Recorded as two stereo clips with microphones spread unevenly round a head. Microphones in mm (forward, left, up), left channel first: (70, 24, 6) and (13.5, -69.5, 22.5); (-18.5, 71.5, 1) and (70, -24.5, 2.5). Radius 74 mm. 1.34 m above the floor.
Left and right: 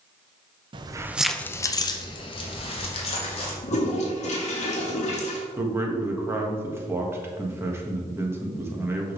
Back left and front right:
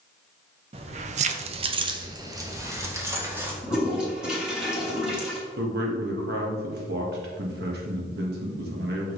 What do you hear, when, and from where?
0.7 s keys jangling: 95° right, 0.6 m; by 3.5 s 25° left, 2.0 m
3.6 s a toilet flushing: 35° left, 1.9 m
5.6 s a man speaking: 50° right, 1.6 m